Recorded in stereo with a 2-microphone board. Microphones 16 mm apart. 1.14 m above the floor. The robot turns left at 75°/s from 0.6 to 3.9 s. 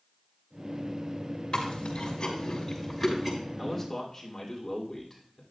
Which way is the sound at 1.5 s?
75° left (ahead or behind).